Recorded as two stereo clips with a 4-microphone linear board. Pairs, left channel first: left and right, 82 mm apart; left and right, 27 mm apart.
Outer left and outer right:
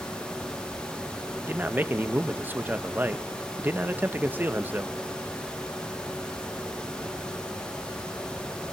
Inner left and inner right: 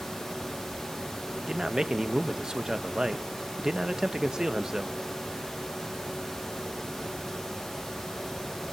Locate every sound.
1.4 s a man speaking: 25° right (ahead or behind), 0.9 m